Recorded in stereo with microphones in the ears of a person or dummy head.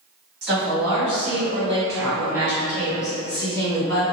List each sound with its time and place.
0.4 s a woman speaking: 60° right (ahead or behind), 1.5 m; by 4.0 s 25° left (ahead or behind), 1.8 m